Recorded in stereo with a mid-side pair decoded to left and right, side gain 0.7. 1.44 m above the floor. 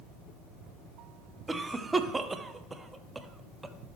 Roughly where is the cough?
Ahead.